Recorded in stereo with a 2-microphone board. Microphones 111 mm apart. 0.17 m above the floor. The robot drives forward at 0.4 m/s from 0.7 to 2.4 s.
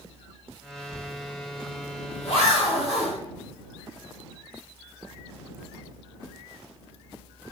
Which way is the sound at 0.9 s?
75° left (ahead or behind).